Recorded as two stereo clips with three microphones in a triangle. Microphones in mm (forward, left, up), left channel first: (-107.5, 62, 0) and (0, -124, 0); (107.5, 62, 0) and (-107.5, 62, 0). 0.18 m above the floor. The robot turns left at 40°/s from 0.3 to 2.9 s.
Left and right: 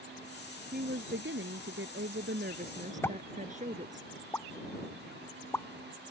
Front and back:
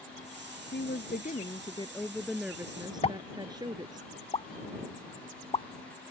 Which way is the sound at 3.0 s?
50° left.